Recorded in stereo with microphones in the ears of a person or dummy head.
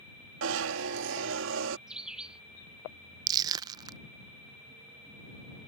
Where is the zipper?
65° right (ahead or behind).